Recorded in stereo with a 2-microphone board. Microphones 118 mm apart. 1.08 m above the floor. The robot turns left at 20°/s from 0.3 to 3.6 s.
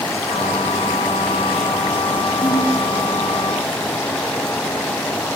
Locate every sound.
2.4 s a ringtone: 30° left (ahead or behind), 2.5 m; by 2.8 s 35° left (ahead or behind), 2.5 m